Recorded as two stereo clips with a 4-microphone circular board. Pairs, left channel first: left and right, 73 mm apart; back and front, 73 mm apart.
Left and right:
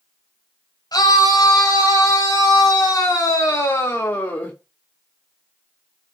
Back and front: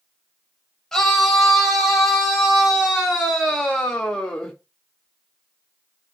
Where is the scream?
105° left, 2.5 m; by 4.5 s 125° left, 1.2 m.